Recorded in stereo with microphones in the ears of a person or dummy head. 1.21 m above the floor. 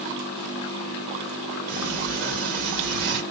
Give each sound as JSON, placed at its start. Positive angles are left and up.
{"t": 1.7, "sound": "a sliding door", "side_deg": -45, "distance_m": 1.6}